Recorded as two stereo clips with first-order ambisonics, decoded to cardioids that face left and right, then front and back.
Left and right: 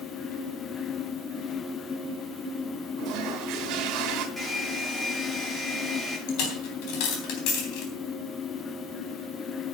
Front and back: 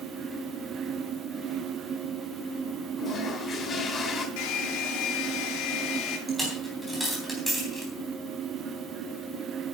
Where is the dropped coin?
90° left, 3.5 m.